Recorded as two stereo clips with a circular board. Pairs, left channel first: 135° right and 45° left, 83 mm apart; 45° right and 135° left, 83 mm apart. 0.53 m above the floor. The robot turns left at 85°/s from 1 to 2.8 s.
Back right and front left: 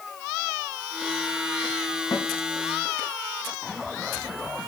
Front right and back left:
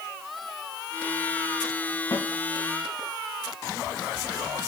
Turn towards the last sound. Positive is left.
turn(degrees=-150)